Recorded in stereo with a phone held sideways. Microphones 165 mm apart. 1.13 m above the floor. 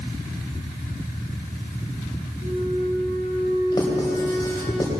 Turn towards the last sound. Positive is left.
turn(degrees=25)  # may be behind; listen again after turning